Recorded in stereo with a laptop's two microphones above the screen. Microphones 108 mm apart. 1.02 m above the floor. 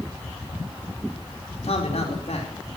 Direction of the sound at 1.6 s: 80° left.